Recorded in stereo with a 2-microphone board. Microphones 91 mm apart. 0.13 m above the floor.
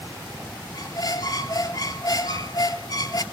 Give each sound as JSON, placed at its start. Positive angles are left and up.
{"t": 0.7, "sound": "a squeak", "side_deg": 50, "distance_m": 0.5}